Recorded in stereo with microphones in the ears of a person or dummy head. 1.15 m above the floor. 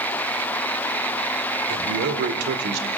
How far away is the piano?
No piano in this recording.